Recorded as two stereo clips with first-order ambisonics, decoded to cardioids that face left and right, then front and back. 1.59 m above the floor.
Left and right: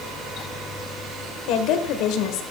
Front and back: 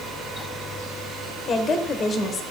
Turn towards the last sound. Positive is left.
turn(degrees=65)